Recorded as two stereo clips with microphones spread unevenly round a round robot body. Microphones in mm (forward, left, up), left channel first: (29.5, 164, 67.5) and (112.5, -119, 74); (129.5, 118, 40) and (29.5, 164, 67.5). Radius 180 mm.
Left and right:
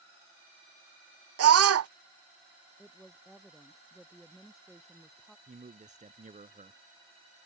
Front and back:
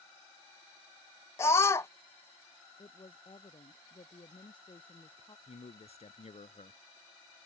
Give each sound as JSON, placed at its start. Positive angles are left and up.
{"t": 1.4, "sound": "a scream", "azimuth_deg": -65}
{"t": 2.8, "sound": "a woman speaking", "azimuth_deg": 15}
{"t": 5.5, "sound": "a man speaking", "azimuth_deg": -10}